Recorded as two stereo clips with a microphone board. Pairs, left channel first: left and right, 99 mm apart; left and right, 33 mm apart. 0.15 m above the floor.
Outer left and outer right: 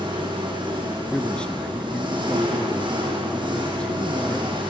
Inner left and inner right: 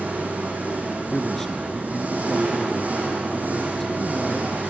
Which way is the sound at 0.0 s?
55° right (ahead or behind).